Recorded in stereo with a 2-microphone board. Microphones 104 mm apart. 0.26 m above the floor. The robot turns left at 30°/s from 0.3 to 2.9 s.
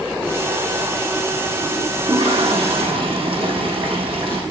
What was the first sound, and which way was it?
A toilet flushing, 85° right.